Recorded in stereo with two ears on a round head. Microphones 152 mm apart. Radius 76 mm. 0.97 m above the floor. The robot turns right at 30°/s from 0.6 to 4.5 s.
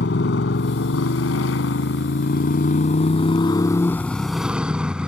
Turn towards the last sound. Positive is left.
turn(degrees=-175)